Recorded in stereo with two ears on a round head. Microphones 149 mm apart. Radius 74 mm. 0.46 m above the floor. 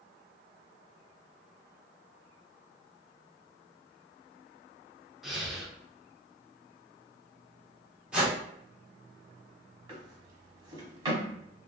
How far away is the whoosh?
About 1.0 m.